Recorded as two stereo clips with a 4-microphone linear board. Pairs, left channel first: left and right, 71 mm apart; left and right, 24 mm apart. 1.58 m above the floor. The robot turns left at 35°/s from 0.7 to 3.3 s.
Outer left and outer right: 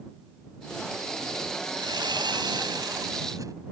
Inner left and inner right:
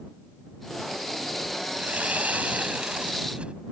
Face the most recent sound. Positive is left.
turn(degrees=-125)